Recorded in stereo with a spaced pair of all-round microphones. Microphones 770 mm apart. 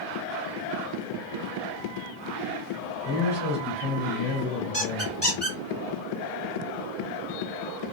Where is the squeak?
15° right (ahead or behind), 1.8 m.